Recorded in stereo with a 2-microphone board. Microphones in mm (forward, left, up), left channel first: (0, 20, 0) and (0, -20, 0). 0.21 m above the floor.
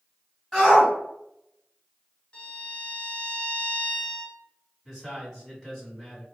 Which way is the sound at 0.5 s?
5° left (ahead or behind).